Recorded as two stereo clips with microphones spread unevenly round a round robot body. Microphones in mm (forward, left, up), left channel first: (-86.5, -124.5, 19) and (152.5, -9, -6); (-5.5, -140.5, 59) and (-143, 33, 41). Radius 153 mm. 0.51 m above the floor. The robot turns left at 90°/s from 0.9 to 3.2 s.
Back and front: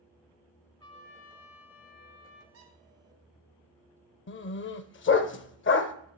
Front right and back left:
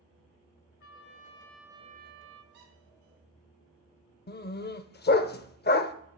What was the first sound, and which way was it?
A trumpet, 80° right.